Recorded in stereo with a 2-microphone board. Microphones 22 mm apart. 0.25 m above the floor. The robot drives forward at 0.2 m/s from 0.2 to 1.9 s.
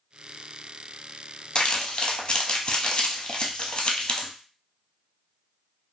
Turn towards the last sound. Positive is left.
turn(degrees=45)  # may be behind; listen again after turning